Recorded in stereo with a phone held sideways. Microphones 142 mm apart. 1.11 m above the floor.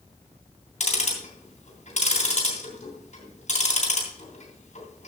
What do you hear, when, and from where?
0.8 s ticking: 55° left (ahead or behind), 3 m